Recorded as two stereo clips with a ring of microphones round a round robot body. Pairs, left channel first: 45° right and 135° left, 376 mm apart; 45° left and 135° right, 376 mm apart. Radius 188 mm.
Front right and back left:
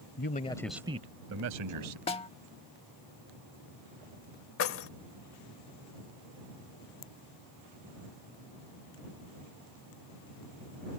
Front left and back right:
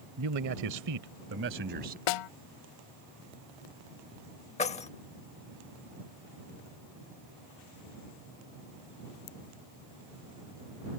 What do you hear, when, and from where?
0.2 s a man speaking: 95° right; by 2.0 s 160° left
2.1 s a snare drum: 30° left
4.6 s keys jangling: 15° right